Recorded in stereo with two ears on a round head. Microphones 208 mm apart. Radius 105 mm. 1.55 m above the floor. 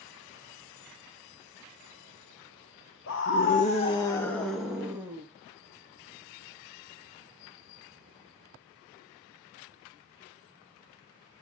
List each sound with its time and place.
3.1 s a scream: 55° left (ahead or behind), 2 m; by 5.2 s 10° right (ahead or behind), 3.5 m